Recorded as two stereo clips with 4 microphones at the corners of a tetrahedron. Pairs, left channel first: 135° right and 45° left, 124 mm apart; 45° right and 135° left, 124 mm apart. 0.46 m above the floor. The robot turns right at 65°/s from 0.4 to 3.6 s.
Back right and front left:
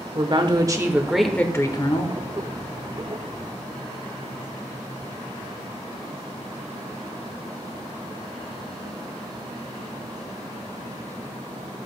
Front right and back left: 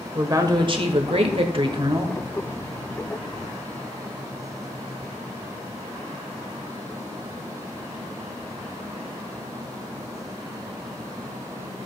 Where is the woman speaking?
85° left, 1.1 m; by 2.2 s 165° right, 1.1 m.